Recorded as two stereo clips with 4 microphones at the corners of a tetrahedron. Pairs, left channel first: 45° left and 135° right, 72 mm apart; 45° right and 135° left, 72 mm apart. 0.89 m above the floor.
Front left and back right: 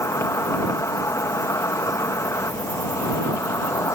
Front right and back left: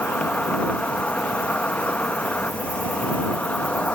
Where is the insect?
20° left.